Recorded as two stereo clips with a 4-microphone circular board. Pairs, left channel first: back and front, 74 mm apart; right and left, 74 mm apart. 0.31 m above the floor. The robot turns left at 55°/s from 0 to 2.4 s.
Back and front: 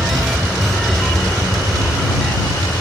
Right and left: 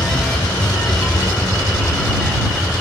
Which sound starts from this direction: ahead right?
An aircraft, at 0.0 s.